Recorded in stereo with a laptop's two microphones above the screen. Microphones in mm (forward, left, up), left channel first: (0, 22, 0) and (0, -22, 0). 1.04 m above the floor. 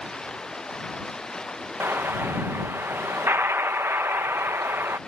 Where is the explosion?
60° right (ahead or behind).